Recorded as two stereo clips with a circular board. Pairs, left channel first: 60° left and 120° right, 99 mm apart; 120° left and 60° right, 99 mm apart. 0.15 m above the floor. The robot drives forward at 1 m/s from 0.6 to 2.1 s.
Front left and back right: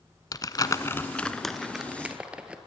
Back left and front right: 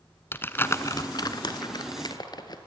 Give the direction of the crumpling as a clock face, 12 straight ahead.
10 o'clock.